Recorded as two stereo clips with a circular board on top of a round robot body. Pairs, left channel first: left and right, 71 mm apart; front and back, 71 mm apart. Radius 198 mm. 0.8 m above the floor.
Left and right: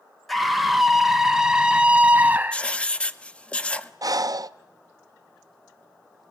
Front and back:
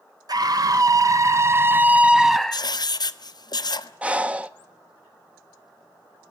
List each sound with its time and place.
0.3 s a scream: straight behind, 1.6 m; by 2.7 s 65° right, 1.0 m
2.5 s writing: 15° left, 0.8 m
4.0 s breathing: 110° right, 0.7 m